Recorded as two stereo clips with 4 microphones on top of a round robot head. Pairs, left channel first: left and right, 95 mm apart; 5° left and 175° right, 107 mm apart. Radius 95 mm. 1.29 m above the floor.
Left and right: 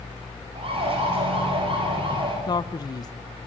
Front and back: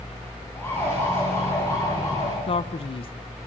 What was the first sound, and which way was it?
A siren, 70° right.